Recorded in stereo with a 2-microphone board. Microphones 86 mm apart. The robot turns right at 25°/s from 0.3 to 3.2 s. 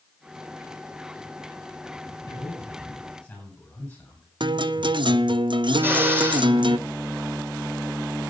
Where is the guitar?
65° right (ahead or behind), 0.5 m.